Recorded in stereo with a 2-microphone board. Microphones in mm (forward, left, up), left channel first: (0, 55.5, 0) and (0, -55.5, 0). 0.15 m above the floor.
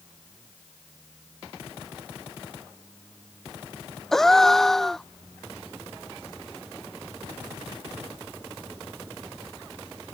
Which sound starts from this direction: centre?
A gasp, at 4.1 s.